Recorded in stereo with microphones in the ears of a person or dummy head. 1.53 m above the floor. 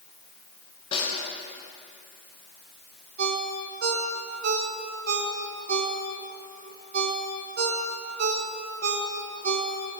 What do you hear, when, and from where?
0.9 s a snare drum: 30° left (ahead or behind), 6.5 m
3.2 s a ringtone: 60° right (ahead or behind), 2.5 m